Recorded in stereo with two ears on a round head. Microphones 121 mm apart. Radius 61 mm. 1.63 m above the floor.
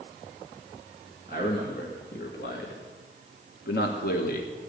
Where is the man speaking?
70° left (ahead or behind), 3 m.